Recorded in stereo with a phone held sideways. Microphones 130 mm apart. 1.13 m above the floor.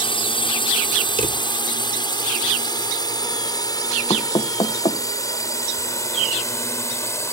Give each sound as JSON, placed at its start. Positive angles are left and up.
{"t": 0.0, "sound": "a drone", "side_deg": 40}
{"t": 1.2, "sound": "a drawer", "side_deg": -65}
{"t": 4.1, "sound": "knocking", "side_deg": 45}